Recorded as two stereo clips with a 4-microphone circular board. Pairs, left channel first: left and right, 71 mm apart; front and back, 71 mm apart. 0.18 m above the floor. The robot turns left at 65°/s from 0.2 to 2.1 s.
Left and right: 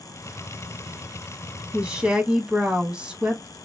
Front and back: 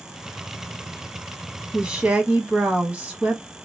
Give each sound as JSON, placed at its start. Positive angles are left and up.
{"t": 1.7, "sound": "a woman speaking", "azimuth_deg": -120, "distance_m": 1.0}